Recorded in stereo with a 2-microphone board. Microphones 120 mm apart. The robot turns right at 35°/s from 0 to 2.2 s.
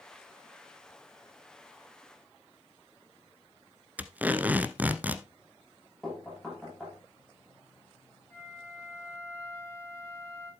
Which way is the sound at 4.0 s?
15° right (ahead or behind).